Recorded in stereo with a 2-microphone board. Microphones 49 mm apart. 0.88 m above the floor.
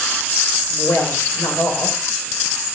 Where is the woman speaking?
80° left, 3 m.